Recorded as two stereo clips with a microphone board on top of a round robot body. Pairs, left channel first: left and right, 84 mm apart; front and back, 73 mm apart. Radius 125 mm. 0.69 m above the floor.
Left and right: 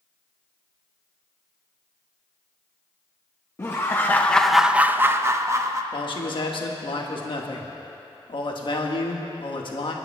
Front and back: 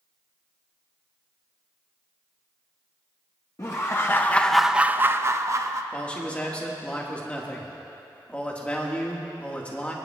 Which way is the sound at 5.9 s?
70° left.